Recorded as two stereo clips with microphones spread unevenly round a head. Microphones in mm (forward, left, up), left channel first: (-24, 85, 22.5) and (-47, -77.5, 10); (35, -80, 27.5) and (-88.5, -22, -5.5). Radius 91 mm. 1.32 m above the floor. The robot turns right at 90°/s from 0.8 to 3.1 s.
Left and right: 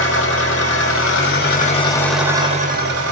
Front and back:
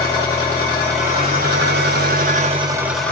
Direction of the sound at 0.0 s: 50° left.